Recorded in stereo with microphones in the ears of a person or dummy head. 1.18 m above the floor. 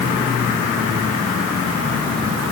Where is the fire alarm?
No fire alarm in this recording.